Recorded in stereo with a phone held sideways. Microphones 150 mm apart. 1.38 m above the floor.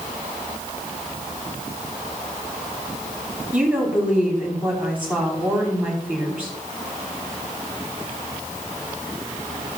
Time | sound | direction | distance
3.5 | a woman speaking | 10° right (ahead or behind) | 5 m